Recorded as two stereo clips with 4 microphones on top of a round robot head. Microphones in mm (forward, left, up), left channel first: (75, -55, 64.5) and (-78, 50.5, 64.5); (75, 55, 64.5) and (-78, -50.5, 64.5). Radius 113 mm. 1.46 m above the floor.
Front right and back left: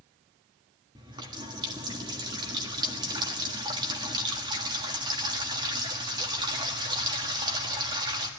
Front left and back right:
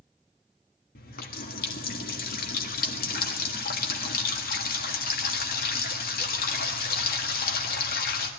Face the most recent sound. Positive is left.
turn(degrees=75)